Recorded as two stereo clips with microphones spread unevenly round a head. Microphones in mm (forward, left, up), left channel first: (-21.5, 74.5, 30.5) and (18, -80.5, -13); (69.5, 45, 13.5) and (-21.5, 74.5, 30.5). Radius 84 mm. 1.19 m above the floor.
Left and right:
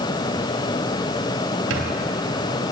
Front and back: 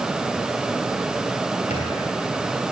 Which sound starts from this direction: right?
A squeak, at 1.7 s.